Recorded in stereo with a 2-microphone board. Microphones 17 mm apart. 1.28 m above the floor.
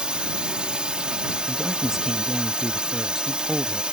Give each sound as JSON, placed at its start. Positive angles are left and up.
{"t": 0.0, "sound": "a drone", "side_deg": -80}
{"t": 1.5, "sound": "a man speaking", "side_deg": -25}